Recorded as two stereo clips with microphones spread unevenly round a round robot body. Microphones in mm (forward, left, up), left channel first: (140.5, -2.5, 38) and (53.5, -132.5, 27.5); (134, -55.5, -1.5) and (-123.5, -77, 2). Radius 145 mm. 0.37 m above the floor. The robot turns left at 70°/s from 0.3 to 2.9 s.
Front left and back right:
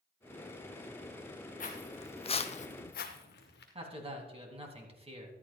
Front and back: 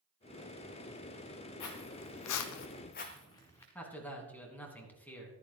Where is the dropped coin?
I don't hear a dropped coin.